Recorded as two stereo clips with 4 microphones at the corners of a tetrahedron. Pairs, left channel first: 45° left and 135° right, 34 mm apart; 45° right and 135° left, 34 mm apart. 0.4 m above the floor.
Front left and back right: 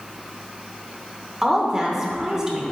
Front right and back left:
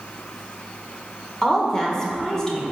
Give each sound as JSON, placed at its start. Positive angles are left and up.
{"t": 1.4, "sound": "a woman speaking", "azimuth_deg": -95, "distance_m": 0.9}